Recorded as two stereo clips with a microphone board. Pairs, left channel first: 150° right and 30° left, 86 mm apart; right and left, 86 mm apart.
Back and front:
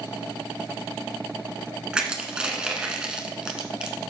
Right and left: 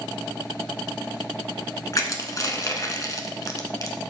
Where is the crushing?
45° right, 1.3 m.